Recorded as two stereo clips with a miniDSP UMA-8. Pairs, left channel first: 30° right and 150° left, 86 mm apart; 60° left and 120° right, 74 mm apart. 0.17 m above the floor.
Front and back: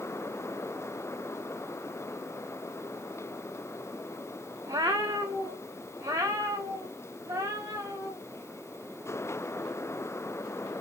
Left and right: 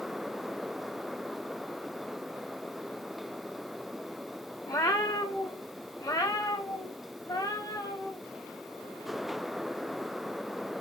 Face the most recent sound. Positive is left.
turn(degrees=95)